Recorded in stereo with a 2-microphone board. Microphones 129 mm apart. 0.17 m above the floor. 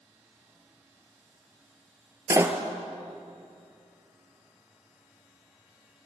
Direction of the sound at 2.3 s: 25° right (ahead or behind).